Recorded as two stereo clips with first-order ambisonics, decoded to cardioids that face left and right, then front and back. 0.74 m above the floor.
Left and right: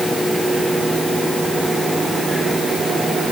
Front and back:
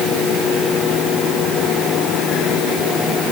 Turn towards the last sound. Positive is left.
No sound to turn to.